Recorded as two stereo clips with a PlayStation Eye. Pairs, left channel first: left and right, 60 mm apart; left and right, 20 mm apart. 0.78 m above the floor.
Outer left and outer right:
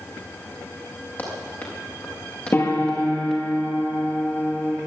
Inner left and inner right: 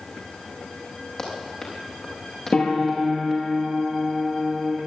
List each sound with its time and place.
1.2 s running footsteps: 35° left (ahead or behind), 7.5 m; by 3.4 s 10° left (ahead or behind), 5.5 m
2.5 s a piano: 35° left (ahead or behind), 6 m